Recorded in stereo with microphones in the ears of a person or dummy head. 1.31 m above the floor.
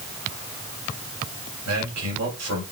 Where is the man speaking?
85° right, 2.5 m.